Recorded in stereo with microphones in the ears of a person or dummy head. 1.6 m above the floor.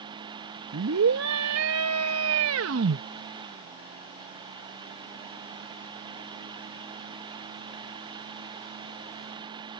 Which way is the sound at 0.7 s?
75° right (ahead or behind).